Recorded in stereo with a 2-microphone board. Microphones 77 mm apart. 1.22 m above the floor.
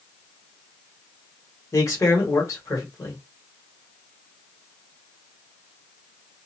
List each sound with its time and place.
1.7 s a man speaking: 40° left (ahead or behind), 1.2 m